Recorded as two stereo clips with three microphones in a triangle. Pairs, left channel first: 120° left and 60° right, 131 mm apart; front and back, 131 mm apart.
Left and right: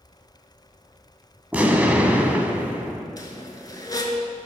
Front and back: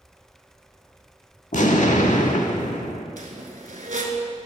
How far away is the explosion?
About 0.5 m.